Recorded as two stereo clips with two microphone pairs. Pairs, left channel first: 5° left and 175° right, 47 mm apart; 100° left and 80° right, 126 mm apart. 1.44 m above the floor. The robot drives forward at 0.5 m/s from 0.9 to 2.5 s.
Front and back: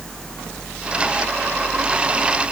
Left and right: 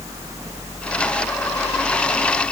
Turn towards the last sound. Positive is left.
No sound to turn to.